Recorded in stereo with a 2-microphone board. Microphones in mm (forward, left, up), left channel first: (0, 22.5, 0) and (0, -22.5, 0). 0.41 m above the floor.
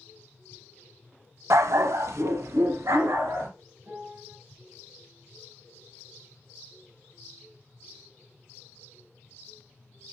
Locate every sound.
1.5 s a dog barking: 75° right (ahead or behind), 0.6 m
3.8 s a piano: 40° right (ahead or behind), 7 m